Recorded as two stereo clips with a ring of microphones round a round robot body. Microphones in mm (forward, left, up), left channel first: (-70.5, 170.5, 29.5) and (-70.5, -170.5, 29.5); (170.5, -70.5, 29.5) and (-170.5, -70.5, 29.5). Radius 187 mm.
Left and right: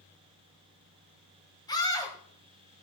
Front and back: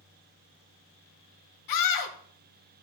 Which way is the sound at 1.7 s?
10° left.